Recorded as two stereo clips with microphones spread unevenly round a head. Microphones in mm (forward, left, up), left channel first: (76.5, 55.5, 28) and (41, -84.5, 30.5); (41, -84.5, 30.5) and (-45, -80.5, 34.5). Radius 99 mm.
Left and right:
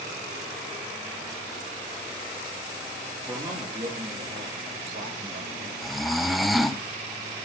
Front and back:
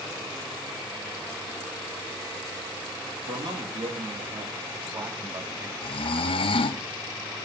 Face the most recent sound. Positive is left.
turn(degrees=-15)